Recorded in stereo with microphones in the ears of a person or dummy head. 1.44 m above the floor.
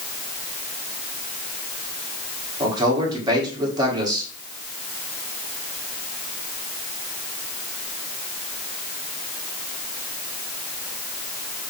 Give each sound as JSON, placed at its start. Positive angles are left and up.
{"t": 2.6, "sound": "a man speaking", "side_deg": -20, "distance_m": 1.8}